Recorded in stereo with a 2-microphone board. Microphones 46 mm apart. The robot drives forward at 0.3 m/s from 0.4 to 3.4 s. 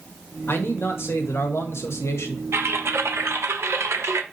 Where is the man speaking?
55° left (ahead or behind), 1.3 m; by 2.4 s 75° left (ahead or behind), 1.1 m.